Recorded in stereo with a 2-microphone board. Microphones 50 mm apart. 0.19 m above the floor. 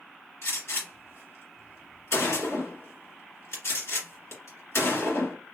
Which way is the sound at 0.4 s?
60° left (ahead or behind).